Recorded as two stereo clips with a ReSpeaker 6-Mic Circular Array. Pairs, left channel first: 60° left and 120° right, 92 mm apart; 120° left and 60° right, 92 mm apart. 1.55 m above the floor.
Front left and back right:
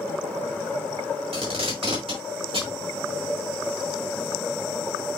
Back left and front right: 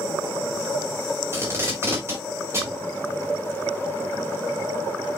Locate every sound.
1.3 s tape being pulled: 120° right, 4 m